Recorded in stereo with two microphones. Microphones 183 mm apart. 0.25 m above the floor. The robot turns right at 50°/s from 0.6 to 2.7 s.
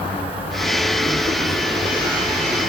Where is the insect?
150° left, 2 m; by 2.7 s 105° right, 2 m.